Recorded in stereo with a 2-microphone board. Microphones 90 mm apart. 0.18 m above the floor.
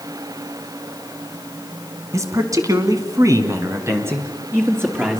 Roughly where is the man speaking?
Right.